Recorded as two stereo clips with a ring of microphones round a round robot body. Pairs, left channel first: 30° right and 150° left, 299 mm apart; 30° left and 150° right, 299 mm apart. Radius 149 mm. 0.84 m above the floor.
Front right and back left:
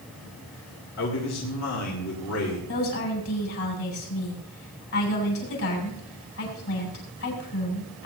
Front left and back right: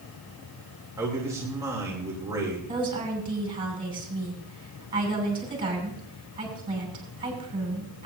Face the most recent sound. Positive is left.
turn(degrees=-75)